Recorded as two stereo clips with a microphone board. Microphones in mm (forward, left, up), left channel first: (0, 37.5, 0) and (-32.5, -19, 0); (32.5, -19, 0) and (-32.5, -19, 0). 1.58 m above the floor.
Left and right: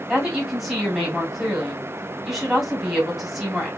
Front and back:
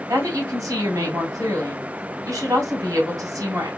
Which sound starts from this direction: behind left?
A woman speaking, at 0.1 s.